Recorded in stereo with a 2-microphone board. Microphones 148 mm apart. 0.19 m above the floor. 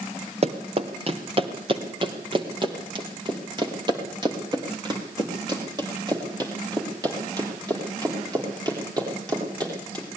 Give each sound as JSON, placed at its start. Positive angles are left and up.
{"t": 0.4, "sound": "running footsteps", "side_deg": -45, "distance_m": 2.5}